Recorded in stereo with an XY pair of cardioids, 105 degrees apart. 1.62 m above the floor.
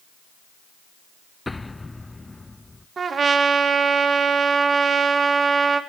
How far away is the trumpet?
About 2.5 m.